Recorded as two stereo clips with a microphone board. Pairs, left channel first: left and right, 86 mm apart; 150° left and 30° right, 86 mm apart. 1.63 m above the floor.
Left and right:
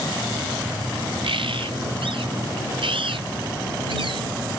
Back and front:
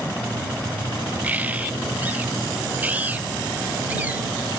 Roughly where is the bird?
Right.